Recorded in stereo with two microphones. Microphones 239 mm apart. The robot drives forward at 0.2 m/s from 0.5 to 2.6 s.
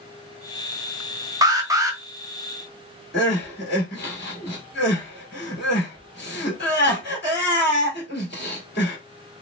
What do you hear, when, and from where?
1.4 s an alarm: 15° right (ahead or behind), 0.6 m
3.1 s crying: 45° left (ahead or behind), 1.6 m